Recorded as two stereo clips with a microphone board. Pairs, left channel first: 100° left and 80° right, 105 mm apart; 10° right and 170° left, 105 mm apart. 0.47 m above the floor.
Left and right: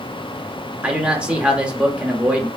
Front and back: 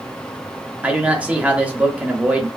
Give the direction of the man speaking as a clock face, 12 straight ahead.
5 o'clock.